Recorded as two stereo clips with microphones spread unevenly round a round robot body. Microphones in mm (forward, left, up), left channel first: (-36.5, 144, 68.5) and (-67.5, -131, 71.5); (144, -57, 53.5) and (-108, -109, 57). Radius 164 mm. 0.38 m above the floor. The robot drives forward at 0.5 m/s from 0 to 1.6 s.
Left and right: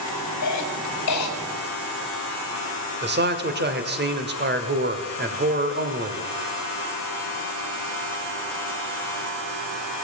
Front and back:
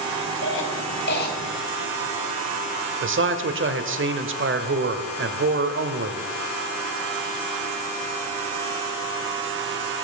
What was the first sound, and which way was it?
A cough, 55° left.